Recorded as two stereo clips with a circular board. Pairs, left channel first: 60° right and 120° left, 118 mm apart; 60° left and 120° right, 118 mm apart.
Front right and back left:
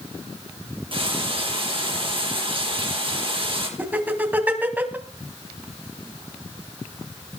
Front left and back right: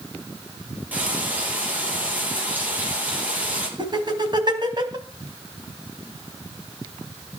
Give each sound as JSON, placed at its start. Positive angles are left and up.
{"t": 0.9, "sound": "frying", "azimuth_deg": 160, "distance_m": 4.5}
{"t": 3.8, "sound": "laughter", "azimuth_deg": -165, "distance_m": 3.0}